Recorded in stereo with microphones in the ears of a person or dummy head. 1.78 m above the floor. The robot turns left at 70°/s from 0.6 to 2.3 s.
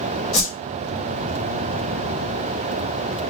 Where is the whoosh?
5° left (ahead or behind), 1.3 m.